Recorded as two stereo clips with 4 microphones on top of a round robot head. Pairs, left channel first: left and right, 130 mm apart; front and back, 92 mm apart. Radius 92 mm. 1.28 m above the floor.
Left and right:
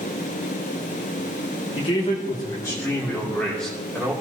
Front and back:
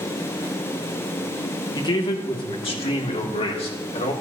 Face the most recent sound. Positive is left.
turn(degrees=0)